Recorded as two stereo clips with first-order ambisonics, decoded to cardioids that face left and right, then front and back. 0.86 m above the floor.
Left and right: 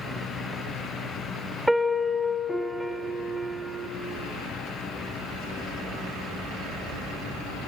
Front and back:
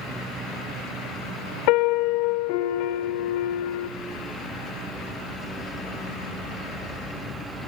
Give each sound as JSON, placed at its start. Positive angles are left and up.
{"t": 1.7, "sound": "a piano", "azimuth_deg": 0, "distance_m": 1.4}